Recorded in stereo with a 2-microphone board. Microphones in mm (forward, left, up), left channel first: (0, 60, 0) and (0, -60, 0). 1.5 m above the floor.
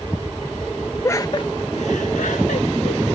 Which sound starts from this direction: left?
Laughter, at 1.0 s.